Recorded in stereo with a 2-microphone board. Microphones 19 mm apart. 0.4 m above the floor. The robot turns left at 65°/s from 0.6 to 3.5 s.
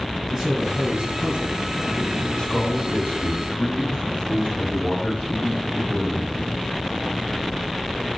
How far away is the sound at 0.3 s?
About 3.5 m.